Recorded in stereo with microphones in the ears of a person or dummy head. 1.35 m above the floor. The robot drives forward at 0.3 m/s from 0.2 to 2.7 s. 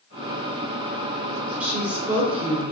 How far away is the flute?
I don't hear a flute.